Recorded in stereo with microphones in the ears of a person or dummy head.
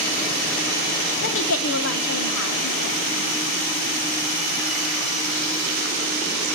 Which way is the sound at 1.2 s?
65° left (ahead or behind).